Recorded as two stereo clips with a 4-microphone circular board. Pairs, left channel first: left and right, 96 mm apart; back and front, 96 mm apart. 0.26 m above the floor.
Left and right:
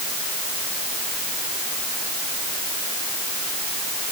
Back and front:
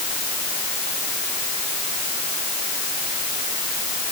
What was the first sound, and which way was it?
Only background noise.